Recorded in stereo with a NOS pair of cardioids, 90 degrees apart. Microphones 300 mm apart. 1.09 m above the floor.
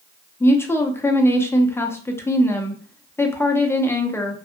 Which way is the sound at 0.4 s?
10° left.